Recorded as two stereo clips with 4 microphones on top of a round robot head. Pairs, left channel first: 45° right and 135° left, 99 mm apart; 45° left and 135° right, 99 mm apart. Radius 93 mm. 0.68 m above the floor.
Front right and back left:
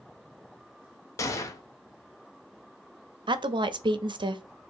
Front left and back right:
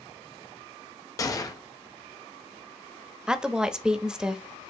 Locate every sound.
1.2 s a gunshot: 5° left, 0.8 m
3.3 s a woman speaking: 145° left, 0.7 m